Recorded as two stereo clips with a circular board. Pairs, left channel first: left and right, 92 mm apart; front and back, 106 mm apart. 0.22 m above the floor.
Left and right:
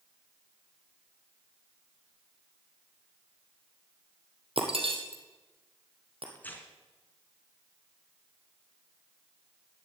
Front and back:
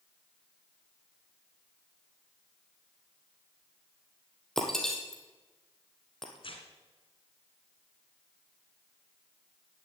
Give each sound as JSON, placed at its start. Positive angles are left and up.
{"t": 4.6, "sound": "breaking glass", "azimuth_deg": -85, "distance_m": 2.5}
{"t": 6.3, "sound": "tearing paper", "azimuth_deg": 20, "distance_m": 2.0}